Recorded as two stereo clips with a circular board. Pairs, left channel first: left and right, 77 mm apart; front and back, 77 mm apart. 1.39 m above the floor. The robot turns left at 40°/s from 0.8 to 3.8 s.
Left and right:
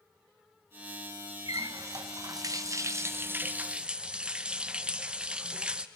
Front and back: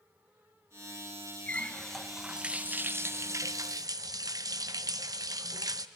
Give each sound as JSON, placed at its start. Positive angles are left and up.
{"t": 1.5, "sound": "a running tap", "azimuth_deg": -70, "distance_m": 0.7}